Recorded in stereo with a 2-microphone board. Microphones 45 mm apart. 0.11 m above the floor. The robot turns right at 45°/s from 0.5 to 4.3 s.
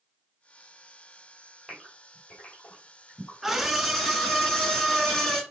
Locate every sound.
1.7 s a gasp: centre (ahead or behind), 2.5 m; by 3.3 s 65° left (ahead or behind), 2.5 m
3.4 s a scream: 5° right (ahead or behind), 1.1 m; by 5.4 s 10° left (ahead or behind), 1.1 m